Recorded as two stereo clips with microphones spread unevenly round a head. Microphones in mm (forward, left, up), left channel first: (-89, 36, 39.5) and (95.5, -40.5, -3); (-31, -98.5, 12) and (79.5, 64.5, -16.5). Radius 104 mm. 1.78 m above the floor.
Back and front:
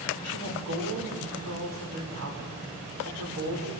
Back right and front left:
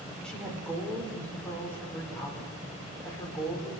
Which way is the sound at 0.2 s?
40° right.